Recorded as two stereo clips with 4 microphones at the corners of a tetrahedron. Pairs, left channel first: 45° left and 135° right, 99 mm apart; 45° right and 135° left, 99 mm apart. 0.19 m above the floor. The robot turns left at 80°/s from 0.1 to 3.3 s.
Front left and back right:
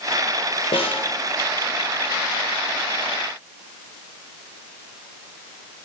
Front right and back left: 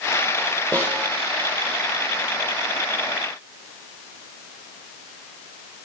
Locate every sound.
0.7 s a snare drum: 35° left, 3 m; by 1.1 s 5° left, 3 m